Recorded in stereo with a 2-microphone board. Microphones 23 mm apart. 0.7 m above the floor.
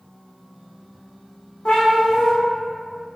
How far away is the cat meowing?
About 1.1 m.